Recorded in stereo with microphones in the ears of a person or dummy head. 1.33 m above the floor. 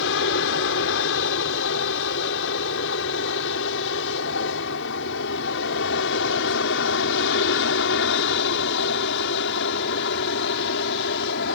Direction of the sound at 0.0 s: 65° left (ahead or behind).